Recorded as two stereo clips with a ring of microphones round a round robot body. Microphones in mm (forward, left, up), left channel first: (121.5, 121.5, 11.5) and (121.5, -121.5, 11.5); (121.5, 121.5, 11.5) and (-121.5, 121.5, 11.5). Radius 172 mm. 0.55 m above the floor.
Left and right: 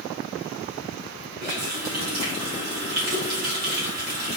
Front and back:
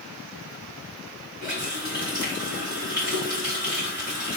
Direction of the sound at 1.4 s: 100° right.